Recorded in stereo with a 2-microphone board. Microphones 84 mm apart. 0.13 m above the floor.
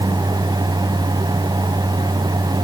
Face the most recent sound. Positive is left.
No sound to turn to.